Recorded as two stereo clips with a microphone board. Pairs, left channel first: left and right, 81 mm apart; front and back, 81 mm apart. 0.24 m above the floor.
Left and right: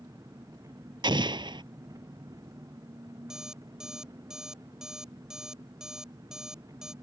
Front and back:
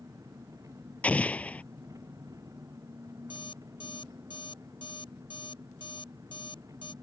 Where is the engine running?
135° right.